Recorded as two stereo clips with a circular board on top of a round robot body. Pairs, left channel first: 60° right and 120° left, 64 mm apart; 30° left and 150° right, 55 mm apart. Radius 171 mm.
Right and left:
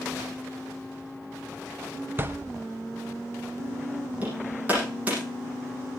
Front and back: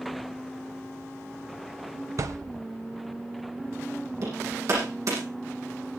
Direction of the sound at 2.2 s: Straight behind.